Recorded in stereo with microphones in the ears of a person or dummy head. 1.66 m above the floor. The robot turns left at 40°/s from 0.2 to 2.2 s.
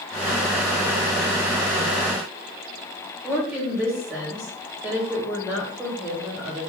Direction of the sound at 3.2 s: 10° right (ahead or behind).